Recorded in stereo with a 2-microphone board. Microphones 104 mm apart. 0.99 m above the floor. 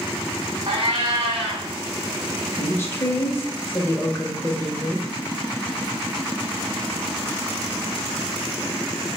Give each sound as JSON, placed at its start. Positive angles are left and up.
{"t": 0.7, "sound": "a cat meowing", "side_deg": -55, "distance_m": 1.0}
{"t": 2.6, "sound": "a woman speaking", "side_deg": 20, "distance_m": 0.6}